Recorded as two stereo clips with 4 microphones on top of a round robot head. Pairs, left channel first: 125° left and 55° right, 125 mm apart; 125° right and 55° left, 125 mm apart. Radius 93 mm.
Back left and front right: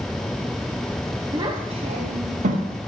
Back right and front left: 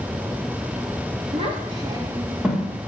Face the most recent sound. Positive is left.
turn(degrees=-45)